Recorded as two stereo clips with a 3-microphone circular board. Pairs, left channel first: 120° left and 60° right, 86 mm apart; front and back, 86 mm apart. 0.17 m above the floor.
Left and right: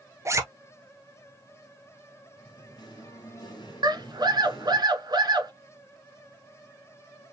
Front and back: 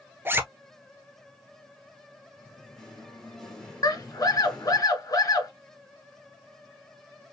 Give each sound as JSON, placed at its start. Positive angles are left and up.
{"t": 0.2, "sound": "a zipper", "azimuth_deg": -115, "distance_m": 0.8}
{"t": 2.4, "sound": "singing", "azimuth_deg": 85, "distance_m": 2.5}
{"t": 3.8, "sound": "a scream", "azimuth_deg": -35, "distance_m": 1.8}